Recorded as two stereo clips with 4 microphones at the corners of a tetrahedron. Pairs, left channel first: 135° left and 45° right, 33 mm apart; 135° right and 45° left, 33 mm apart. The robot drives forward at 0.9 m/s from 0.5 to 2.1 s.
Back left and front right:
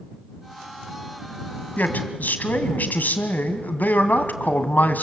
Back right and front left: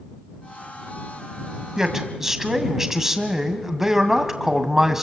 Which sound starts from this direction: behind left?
A man speaking, at 1.8 s.